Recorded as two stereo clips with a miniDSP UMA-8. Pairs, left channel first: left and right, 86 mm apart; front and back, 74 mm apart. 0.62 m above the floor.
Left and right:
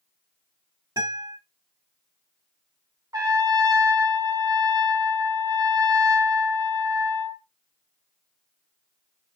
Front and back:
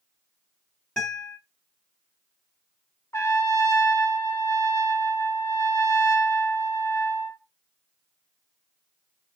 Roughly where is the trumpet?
Ahead right.